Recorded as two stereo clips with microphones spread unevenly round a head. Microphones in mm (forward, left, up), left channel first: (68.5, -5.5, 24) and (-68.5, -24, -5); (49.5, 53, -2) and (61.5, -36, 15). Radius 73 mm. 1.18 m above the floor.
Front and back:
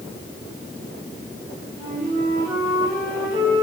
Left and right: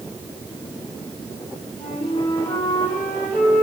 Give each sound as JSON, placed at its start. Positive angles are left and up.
{"t": 1.8, "sound": "a flute", "azimuth_deg": 125, "distance_m": 2.5}